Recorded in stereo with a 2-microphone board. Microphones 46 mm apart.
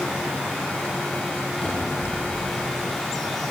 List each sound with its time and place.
1.6 s a cupboard door: 15° left (ahead or behind), 9.5 m